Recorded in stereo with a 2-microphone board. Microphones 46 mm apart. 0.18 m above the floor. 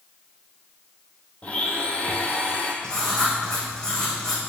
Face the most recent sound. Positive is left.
turn(degrees=20)  # may be behind; listen again after turning